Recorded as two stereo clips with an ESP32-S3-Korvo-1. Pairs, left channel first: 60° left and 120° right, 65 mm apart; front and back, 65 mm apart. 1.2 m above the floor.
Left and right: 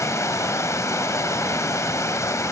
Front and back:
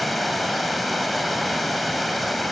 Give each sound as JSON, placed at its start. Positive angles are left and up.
{"t": 0.0, "sound": "running water", "azimuth_deg": 90, "distance_m": 1.8}